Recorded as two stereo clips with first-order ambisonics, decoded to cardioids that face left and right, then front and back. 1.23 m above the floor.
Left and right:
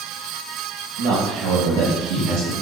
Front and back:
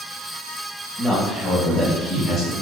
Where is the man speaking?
85° right, 1.9 m; by 2.5 s 60° right, 3 m.